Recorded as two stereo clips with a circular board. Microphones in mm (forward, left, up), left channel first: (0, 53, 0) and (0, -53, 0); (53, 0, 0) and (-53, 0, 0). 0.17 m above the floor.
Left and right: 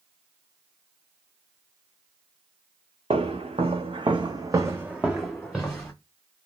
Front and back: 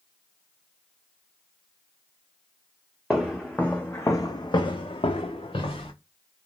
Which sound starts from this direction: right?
Footsteps, at 3.1 s.